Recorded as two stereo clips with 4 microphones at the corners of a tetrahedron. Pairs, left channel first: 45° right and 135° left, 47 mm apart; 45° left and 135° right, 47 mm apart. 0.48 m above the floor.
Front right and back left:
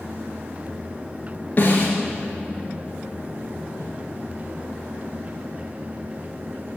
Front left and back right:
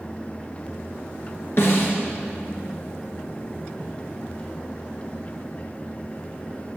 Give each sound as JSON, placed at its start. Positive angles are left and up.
{"t": 1.6, "sound": "a snare drum", "azimuth_deg": 5, "distance_m": 2.5}
{"t": 3.8, "sound": "footsteps", "azimuth_deg": 100, "distance_m": 4.5}